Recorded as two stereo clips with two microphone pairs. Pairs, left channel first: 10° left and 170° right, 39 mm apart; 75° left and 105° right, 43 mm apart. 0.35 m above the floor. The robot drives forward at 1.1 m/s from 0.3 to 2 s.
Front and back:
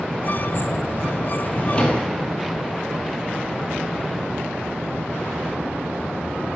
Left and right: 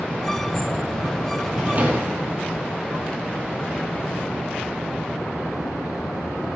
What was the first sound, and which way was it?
A drawer, 45° right.